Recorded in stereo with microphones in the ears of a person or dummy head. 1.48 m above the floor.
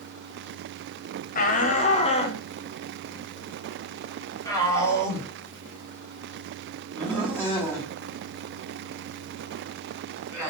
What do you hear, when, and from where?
1.4 s a shout: 45° left (ahead or behind), 1.2 m; by 10.5 s 10° left (ahead or behind), 6 m